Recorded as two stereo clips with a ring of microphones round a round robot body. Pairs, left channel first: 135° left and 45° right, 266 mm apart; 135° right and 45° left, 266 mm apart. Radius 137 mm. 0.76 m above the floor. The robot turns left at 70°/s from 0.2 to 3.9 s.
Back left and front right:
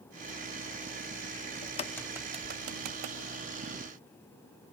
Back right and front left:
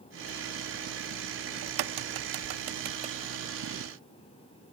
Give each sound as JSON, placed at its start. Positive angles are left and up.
{"t": 1.6, "sound": "a crack", "azimuth_deg": 75, "distance_m": 0.6}